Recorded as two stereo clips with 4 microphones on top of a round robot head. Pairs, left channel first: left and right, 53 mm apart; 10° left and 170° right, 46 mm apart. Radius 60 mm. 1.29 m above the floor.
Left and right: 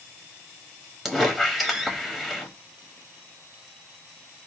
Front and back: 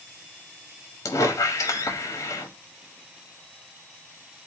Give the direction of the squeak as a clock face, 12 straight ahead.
12 o'clock.